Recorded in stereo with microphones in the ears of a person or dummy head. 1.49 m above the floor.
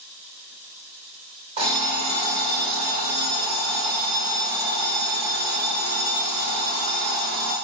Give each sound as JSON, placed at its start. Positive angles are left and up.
{"t": 1.6, "sound": "an alarm clock", "side_deg": -25, "distance_m": 0.8}